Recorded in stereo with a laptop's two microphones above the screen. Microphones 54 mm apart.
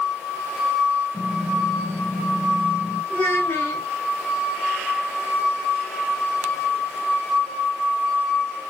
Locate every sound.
1.1 s typing on a keyboard: 45° left (ahead or behind), 6.5 m
3.1 s a child speaking: 25° left (ahead or behind), 6 m